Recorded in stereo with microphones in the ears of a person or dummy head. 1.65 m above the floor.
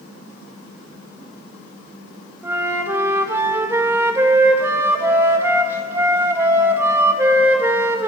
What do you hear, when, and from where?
2.4 s a flute: 10° right (ahead or behind), 1.5 m